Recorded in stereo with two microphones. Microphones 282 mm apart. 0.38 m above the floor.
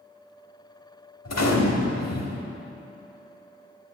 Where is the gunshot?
65° left (ahead or behind), 0.8 m.